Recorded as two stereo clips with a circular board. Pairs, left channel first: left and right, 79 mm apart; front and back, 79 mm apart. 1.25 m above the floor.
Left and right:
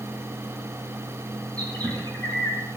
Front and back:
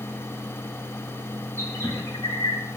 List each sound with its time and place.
1.6 s a bird: 55° right, 5 m